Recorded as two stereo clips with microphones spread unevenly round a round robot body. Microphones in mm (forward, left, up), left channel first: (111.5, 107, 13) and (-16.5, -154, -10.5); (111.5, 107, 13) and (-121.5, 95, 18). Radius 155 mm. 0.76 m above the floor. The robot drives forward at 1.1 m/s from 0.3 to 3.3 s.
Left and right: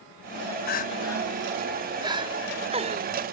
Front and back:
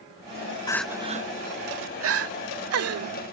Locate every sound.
0.7 s crying: 50° left; by 3.1 s 175° left